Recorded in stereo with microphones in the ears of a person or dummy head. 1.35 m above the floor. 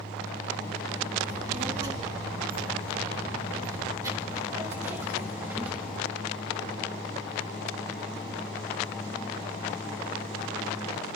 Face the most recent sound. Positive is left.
turn(degrees=-10)  # may be behind; listen again after turning